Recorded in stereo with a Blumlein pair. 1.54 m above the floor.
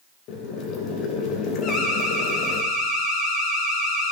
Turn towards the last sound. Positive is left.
turn(degrees=30)